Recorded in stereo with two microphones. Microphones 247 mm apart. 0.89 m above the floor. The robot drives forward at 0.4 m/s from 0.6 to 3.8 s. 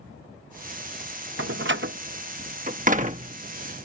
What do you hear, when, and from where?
1.4 s a door slam: 55° right (ahead or behind); by 3.4 s 30° right (ahead or behind)